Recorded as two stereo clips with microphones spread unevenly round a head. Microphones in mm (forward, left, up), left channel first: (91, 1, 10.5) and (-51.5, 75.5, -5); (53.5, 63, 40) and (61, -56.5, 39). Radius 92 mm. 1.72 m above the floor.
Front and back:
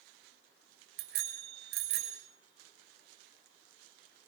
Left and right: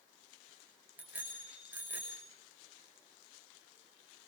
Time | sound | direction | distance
1.0 | a bicycle bell | 165° right | 6 m